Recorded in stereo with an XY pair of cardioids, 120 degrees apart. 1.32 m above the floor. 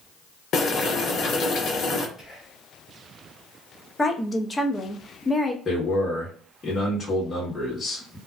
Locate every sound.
0.5 s boiling: 55° left, 0.8 m
2.2 s whispering: 5° right, 1.2 m
4.0 s a woman speaking: 15° left, 0.6 m
5.7 s a man speaking: 25° left, 1.3 m